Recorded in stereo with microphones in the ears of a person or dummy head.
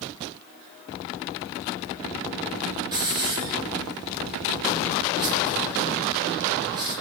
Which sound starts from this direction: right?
A hiss, at 2.9 s.